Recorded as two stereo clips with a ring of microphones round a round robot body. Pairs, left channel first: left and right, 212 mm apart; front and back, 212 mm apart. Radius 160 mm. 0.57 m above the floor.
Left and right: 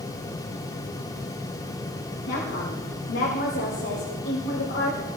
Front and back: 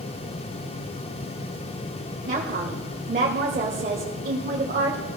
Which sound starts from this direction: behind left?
A woman speaking, at 2.3 s.